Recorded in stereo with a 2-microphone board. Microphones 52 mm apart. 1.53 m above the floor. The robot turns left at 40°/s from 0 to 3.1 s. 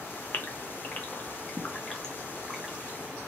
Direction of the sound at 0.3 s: 40° left (ahead or behind).